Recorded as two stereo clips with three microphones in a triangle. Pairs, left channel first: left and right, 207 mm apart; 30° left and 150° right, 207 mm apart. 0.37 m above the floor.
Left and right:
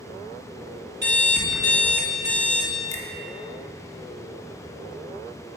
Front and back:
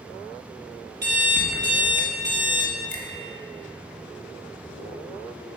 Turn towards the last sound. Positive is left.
turn(degrees=165)